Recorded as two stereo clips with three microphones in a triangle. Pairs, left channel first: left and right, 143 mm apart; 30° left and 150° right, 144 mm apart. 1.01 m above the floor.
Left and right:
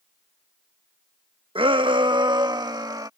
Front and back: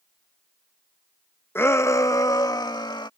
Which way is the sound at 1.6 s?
45° right.